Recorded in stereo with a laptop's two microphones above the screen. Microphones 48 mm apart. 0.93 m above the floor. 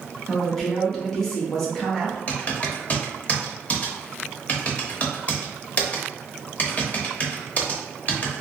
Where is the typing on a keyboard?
30° left (ahead or behind), 0.8 m.